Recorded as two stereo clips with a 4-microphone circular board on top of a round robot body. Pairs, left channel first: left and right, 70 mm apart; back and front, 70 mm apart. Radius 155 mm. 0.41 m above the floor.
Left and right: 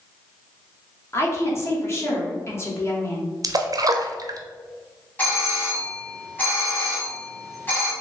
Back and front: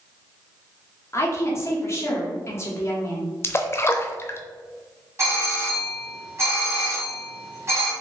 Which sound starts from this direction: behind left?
A woman speaking, at 1.1 s.